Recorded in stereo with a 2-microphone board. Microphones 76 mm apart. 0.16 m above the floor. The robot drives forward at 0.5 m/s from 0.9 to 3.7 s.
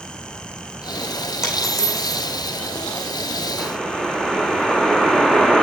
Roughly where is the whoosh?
Centre.